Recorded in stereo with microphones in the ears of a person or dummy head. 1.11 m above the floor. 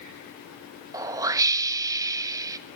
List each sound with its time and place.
0.9 s a whoosh: 15° right (ahead or behind), 1.0 m